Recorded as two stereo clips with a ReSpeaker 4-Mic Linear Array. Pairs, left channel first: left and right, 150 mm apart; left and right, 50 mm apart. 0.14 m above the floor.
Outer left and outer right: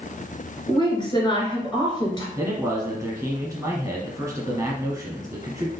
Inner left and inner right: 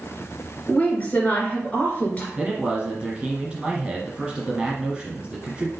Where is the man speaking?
15° right (ahead or behind), 1.6 m.